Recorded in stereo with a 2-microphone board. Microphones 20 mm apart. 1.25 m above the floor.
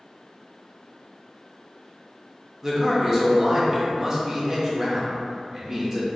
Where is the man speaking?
20° right (ahead or behind), 0.7 m.